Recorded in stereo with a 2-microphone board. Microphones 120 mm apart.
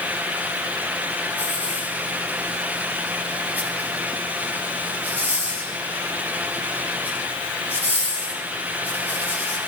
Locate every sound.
1.4 s a hiss: 15° right (ahead or behind), 9.5 m